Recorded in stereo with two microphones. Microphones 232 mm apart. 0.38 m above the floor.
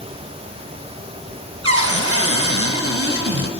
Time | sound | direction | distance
1.6 | a cupboard door | 85° right | 1.2 m